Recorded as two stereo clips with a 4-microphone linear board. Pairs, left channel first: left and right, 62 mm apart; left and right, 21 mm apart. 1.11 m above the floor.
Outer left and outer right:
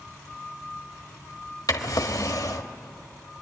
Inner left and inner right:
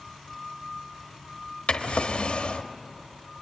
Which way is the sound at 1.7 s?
70° left (ahead or behind).